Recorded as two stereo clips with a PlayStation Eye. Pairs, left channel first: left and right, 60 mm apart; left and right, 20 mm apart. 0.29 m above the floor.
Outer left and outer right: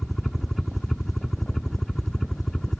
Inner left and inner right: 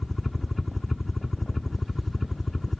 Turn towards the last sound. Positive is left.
turn(degrees=5)  # may be behind; listen again after turning